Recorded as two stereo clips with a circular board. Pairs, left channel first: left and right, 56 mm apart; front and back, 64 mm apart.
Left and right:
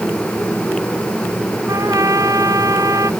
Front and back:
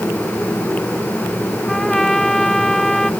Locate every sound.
1.7 s a trumpet: 85° right